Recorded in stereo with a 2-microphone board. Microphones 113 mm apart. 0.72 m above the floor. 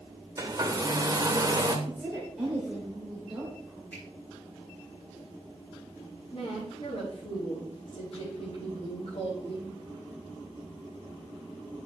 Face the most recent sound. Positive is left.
turn(degrees=65)  # may be behind; listen again after turning